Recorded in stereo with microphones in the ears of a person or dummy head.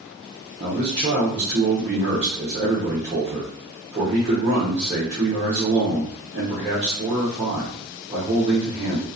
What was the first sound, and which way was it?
A man speaking, 35° right (ahead or behind).